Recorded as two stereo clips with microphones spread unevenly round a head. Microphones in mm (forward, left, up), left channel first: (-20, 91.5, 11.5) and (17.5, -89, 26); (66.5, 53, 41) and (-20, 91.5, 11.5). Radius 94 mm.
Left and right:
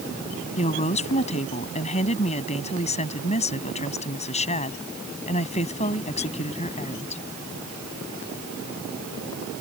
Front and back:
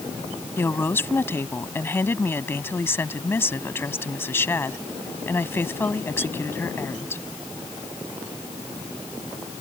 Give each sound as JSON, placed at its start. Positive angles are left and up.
{"t": 0.6, "sound": "a woman speaking", "azimuth_deg": 40}